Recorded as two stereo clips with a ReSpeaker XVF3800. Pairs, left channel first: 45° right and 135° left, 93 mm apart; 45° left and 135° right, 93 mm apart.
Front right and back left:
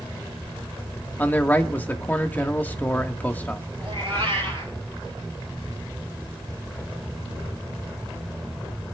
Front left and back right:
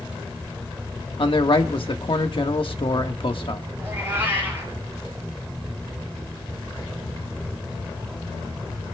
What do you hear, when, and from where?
1.2 s a man speaking: 25° left, 1.3 m
3.8 s a cat meowing: 160° left, 6 m